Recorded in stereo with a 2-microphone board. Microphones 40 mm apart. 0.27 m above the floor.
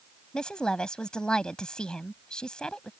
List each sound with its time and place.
0.3 s a woman speaking: 20° left (ahead or behind)